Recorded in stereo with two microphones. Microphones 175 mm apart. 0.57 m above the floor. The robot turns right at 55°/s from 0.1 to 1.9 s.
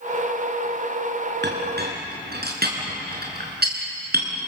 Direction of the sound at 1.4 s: 85° right.